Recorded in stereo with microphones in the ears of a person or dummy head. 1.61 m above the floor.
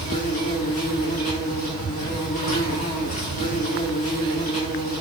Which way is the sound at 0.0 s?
35° left (ahead or behind).